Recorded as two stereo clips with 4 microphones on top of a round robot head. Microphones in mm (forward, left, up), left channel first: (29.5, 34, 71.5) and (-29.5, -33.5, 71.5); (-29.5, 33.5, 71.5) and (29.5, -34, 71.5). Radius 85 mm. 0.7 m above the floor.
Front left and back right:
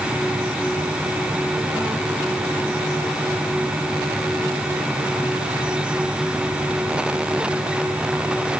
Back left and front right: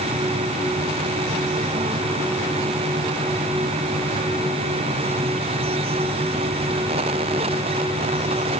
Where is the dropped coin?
I don't hear a dropped coin.